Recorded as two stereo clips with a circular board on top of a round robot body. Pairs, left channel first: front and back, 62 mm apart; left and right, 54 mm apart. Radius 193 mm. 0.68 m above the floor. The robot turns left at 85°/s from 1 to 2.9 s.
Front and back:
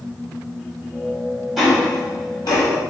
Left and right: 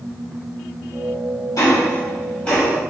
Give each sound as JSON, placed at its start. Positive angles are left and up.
{"t": 1.6, "sound": "ticking", "azimuth_deg": 90, "distance_m": 1.2}